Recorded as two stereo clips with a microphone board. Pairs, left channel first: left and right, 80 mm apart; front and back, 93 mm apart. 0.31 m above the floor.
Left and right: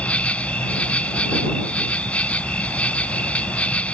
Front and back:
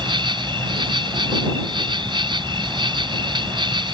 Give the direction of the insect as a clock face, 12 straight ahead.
7 o'clock.